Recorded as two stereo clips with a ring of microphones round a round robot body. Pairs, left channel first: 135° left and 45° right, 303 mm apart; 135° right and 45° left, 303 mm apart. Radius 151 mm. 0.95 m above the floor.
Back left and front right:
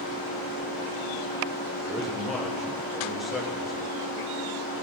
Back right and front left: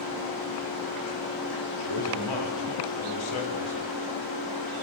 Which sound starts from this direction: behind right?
A man speaking, at 1.8 s.